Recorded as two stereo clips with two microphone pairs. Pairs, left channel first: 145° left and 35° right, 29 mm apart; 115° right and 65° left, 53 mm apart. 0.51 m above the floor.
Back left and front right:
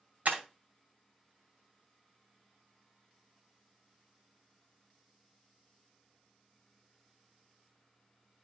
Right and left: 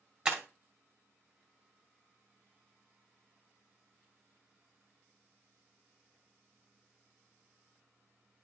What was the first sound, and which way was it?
Breaking glass, 10° right.